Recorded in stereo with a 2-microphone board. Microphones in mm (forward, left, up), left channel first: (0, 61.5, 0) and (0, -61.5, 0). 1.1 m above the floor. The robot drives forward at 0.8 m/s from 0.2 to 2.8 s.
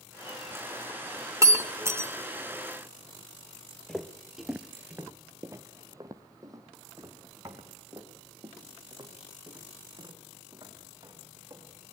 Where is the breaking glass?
25° right (ahead or behind), 1.6 m; by 2.1 s 20° right (ahead or behind), 2 m.